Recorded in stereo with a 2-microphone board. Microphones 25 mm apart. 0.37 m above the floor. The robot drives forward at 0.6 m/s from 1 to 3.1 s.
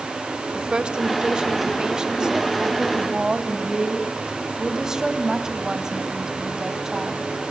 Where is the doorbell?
I don't hear a doorbell.